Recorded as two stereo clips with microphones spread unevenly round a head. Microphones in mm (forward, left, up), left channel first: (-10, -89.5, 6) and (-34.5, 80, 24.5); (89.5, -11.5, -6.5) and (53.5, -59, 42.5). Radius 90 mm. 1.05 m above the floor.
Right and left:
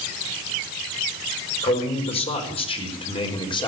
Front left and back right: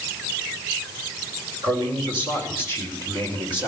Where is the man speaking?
135° right, 5 m; by 3.7 s 145° right, 3.5 m.